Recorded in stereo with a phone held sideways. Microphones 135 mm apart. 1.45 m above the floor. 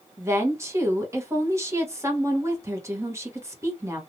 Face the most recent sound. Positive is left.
turn(degrees=-20)  # may be behind; listen again after turning